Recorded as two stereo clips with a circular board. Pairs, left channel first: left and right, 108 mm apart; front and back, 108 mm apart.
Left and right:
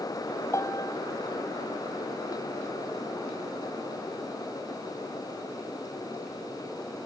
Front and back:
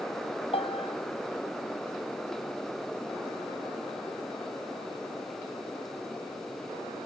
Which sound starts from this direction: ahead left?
A piano, at 0.5 s.